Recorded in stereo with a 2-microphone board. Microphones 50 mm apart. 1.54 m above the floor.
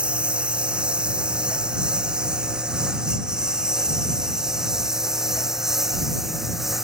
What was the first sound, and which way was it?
A lawn mower, 20° right (ahead or behind).